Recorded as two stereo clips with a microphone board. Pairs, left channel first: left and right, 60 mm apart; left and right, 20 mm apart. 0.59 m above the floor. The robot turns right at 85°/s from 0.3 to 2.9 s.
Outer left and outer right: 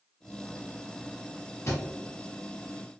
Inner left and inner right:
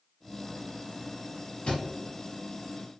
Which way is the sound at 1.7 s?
55° left (ahead or behind).